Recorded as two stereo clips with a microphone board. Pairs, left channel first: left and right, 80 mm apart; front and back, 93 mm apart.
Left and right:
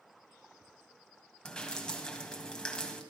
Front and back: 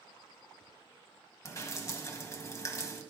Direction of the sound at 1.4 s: 20° left.